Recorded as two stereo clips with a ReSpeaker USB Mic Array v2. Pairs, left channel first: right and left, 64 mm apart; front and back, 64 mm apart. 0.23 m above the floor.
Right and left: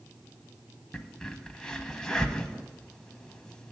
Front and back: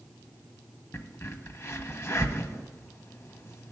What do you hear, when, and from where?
0.9 s a crack: 20° right, 0.7 m